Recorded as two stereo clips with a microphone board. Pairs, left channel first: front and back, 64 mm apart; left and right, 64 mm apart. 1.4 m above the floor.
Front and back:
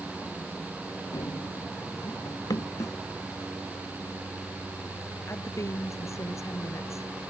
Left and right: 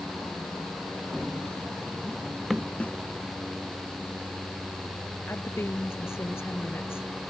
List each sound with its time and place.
1.1 s running footsteps: 5° left; by 2.7 s 5° right
2.8 s a snare drum: 20° left
5.3 s a woman speaking: 40° left